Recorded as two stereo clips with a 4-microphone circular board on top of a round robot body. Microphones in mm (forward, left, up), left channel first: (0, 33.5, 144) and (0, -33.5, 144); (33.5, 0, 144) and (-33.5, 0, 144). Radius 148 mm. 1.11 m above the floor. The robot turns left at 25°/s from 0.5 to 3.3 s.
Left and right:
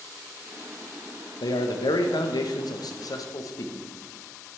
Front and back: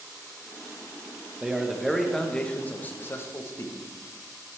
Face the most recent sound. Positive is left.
turn(degrees=55)